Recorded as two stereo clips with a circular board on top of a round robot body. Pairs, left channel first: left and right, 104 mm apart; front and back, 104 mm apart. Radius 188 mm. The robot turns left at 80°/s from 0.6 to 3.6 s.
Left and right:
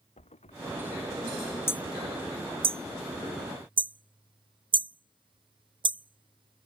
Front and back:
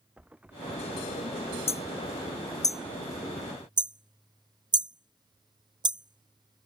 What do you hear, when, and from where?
0.2 s a thud: 100° left; by 1.6 s 25° left
1.7 s hammering: 25° left; by 6.7 s 130° right